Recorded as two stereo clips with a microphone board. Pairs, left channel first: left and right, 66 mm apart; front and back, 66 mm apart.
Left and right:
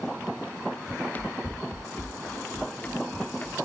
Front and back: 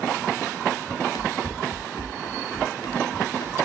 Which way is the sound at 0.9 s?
30° left.